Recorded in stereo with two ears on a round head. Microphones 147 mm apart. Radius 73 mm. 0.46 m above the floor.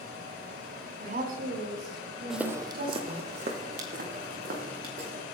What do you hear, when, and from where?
1.0 s a woman speaking: 50° right (ahead or behind), 4 m; by 3.3 s 65° right (ahead or behind), 4.5 m
2.3 s footsteps: centre (ahead or behind), 1.0 m; by 5.2 s 60° right (ahead or behind), 4.5 m